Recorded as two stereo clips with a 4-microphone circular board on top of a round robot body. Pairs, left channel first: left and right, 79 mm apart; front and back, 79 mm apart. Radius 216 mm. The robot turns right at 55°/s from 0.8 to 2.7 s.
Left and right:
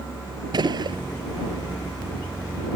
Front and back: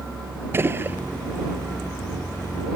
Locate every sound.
0.5 s a gunshot: 120° right; by 1.0 s 110° right